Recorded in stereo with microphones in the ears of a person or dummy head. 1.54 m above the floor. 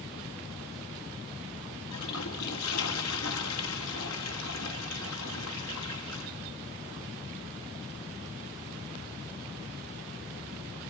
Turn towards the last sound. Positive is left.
turn(degrees=75)  # may be behind; listen again after turning